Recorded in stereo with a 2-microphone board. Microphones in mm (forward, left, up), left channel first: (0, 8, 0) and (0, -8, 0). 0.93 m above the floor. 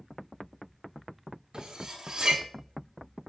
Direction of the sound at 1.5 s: 55° right (ahead or behind).